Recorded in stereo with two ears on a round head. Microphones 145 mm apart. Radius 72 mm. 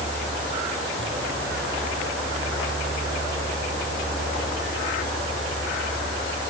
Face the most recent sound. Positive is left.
No sound to turn to.